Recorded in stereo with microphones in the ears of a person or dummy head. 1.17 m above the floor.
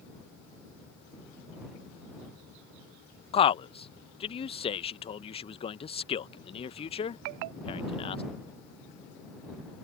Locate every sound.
3.3 s a man speaking: 35° left (ahead or behind)